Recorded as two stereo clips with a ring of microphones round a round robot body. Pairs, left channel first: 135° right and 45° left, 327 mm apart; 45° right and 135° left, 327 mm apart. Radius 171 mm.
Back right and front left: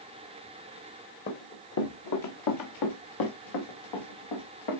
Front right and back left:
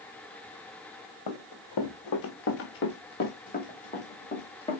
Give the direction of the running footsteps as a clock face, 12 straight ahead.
2 o'clock.